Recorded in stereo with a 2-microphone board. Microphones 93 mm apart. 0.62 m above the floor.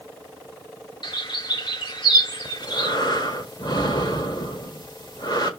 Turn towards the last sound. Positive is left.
turn(degrees=55)  # may be behind; listen again after turning